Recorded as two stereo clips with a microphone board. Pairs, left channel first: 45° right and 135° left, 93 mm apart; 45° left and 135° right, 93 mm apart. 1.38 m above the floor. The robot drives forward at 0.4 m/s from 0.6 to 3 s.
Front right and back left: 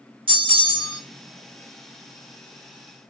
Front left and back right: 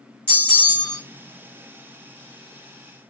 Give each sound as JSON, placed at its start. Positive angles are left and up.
{"t": 0.3, "sound": "a bell", "azimuth_deg": 115, "distance_m": 1.7}